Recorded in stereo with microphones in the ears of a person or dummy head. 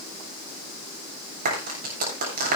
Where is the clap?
50° right (ahead or behind), 7.5 m.